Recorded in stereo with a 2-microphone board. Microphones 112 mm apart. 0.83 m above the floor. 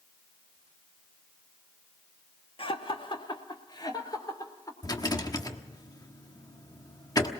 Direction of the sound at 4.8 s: 35° left (ahead or behind).